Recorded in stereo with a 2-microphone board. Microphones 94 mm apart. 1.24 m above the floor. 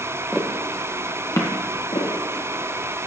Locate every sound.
0.3 s footsteps: 5° right (ahead or behind), 1.4 m; by 1.5 s 35° left (ahead or behind), 1.5 m
1.9 s footsteps: 65° left (ahead or behind), 3.5 m; by 3.0 s 50° left (ahead or behind), 3.5 m